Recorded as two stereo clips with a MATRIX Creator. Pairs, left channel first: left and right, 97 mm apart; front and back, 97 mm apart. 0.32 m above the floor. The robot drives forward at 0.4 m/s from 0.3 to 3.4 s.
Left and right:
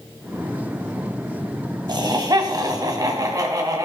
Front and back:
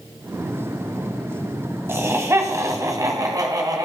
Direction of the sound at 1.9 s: 120° right.